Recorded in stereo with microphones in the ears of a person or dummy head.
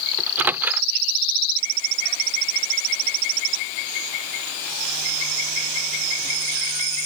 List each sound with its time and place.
0.2 s a microwave: 15° right (ahead or behind)